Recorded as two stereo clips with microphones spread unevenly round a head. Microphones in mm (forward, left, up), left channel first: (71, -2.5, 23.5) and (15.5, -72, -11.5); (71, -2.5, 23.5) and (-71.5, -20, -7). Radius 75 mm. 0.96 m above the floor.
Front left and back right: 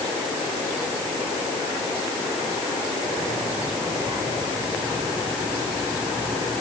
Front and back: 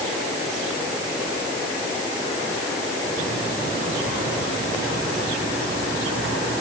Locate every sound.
Only background noise.